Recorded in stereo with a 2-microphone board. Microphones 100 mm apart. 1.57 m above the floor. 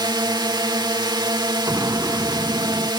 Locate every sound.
0.0 s a drone: 45° right (ahead or behind)
1.7 s an explosion: 30° right (ahead or behind)